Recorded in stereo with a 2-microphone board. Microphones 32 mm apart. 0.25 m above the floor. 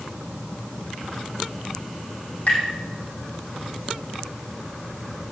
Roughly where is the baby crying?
I don't hear a baby crying.